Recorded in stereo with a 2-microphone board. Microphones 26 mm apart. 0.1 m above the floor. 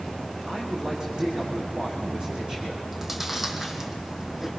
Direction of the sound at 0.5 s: 30° right (ahead or behind).